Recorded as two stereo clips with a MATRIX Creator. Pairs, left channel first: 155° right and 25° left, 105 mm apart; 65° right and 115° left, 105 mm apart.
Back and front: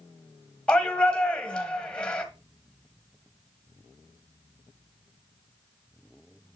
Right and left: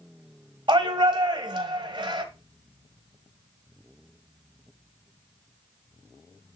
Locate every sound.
0.7 s a shout: 125° left, 1.4 m